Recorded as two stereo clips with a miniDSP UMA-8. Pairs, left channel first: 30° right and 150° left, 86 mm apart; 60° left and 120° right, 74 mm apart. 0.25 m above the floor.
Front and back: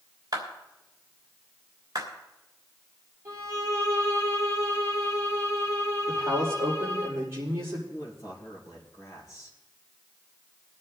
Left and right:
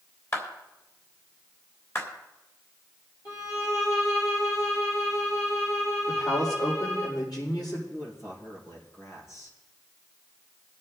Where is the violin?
95° left, 5.5 m.